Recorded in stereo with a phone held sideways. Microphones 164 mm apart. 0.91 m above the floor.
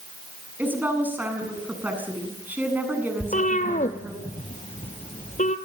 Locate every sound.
0.6 s a woman speaking: 10° right (ahead or behind), 7.5 m
3.2 s a cat meowing: 50° left (ahead or behind), 2 m